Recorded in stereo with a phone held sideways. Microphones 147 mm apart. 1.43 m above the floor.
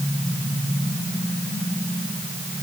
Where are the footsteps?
I don't hear footsteps.